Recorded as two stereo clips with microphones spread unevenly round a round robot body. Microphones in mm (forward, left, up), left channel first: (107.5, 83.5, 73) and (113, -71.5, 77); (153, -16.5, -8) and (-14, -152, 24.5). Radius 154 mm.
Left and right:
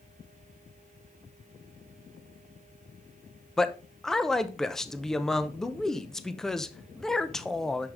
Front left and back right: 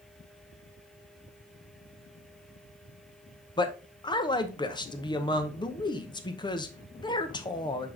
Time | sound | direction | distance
3.6 | a man speaking | 10° left | 0.8 m